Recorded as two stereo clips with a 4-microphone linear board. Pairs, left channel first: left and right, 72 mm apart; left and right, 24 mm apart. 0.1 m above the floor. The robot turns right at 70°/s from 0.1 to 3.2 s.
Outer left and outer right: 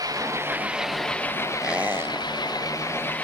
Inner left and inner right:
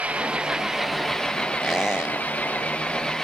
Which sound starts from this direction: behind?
A squeak, at 1.6 s.